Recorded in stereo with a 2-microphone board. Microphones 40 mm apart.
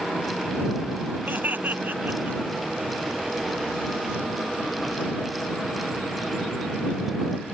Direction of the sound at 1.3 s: 45° right (ahead or behind).